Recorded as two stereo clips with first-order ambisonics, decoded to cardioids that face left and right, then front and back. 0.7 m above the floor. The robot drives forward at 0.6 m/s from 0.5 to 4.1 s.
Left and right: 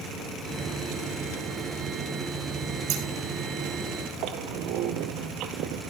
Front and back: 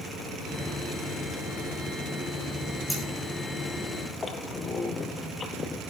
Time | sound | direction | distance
2.9 | scissors | 90° right | 5.5 m
4.2 | a squeak | 70° right | 1.4 m